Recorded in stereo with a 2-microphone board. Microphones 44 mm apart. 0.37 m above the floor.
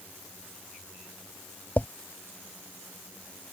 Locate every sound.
1.8 s a drawer: 45° left (ahead or behind)